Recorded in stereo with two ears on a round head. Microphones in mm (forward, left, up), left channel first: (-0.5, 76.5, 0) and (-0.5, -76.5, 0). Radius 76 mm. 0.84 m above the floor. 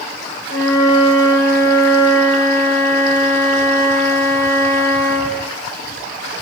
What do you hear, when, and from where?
0.5 s a flute: 70° left (ahead or behind), 4 m